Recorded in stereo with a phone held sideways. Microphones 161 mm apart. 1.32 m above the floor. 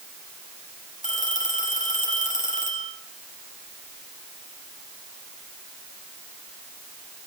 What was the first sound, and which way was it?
A phone ringing, 50° left (ahead or behind).